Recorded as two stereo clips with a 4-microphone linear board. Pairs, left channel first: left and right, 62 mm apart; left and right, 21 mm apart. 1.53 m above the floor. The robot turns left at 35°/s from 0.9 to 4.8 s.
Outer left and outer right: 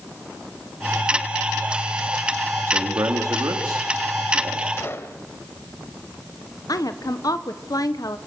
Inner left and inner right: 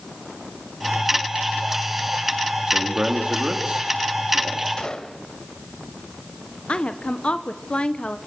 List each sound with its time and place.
2.7 s a man speaking: 50° right, 3 m; by 4.7 s 120° right, 3 m
4.8 s a gunshot: 40° left (ahead or behind), 2 m; by 5.2 s 45° left (ahead or behind), 2 m
6.7 s a woman speaking: 80° left, 1.2 m